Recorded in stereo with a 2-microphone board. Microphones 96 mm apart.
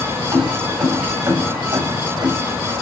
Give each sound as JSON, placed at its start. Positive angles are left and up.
{"t": 0.3, "sound": "keys jangling", "side_deg": -30, "distance_m": 8.0}